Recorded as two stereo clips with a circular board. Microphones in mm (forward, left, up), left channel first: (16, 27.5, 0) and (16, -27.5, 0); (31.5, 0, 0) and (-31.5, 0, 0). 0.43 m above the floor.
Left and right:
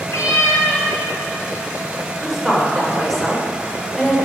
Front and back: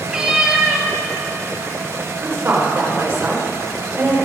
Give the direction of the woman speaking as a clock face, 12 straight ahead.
6 o'clock.